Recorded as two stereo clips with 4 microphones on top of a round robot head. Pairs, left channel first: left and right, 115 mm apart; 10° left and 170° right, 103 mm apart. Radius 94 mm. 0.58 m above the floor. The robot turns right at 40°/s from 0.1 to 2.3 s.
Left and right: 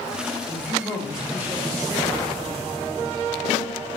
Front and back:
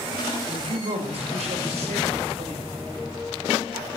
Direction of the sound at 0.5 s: 155° left.